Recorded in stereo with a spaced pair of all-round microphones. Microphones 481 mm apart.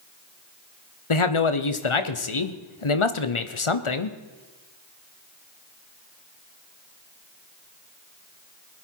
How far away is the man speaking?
About 1.0 m.